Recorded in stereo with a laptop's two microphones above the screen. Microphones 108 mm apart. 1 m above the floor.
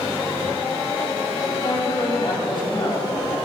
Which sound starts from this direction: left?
A man speaking, at 1.6 s.